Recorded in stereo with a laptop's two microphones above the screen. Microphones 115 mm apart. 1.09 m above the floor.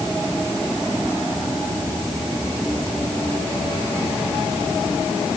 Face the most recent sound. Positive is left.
No sound to turn to.